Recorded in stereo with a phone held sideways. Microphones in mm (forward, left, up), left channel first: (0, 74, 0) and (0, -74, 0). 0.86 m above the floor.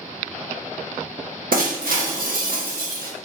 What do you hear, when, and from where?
1.5 s breaking glass: 85° right, 0.8 m